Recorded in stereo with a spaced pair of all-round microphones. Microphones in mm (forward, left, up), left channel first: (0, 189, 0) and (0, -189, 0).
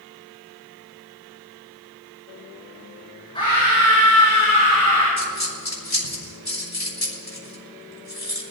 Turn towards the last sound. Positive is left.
turn(degrees=80)